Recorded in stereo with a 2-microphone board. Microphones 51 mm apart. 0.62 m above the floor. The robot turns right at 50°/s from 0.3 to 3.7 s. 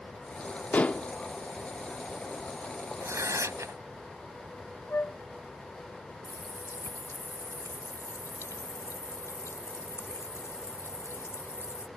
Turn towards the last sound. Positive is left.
turn(degrees=70)  # may be behind; listen again after turning